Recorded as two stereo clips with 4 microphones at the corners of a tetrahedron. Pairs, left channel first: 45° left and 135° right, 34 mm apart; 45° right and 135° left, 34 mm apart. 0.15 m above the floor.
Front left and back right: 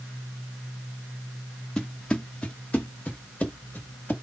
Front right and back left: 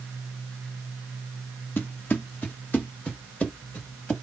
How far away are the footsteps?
About 1.3 m.